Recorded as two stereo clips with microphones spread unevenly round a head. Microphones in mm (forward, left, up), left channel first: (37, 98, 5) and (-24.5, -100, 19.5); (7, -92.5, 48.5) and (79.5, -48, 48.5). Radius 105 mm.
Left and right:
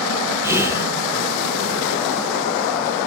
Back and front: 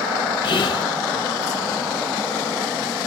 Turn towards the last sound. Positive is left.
turn(degrees=175)